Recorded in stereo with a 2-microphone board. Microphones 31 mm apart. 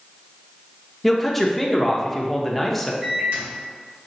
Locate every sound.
1.0 s a man speaking: 5° left (ahead or behind), 0.7 m
3.0 s a microwave: 60° right (ahead or behind), 1.8 m